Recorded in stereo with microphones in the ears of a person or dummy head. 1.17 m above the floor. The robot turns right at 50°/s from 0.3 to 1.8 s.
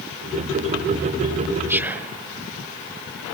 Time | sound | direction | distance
1.7 | whispering | 15° right (ahead or behind) | 0.7 m